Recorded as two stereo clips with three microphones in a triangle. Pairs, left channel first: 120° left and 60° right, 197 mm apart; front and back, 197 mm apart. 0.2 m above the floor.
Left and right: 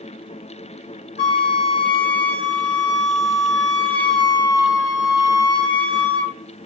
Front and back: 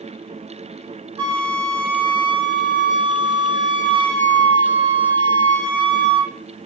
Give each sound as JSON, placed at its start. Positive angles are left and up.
{"t": 1.2, "sound": "a flute", "azimuth_deg": 120, "distance_m": 0.6}